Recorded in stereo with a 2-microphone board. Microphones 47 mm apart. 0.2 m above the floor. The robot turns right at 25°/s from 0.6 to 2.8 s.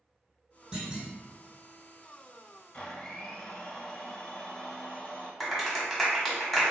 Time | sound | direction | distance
0.7 | a clunk | 20° right (ahead or behind) | 1.9 m
2.7 | a blender | 25° left (ahead or behind) | 0.9 m
5.4 | a clap | centre (ahead or behind) | 1.0 m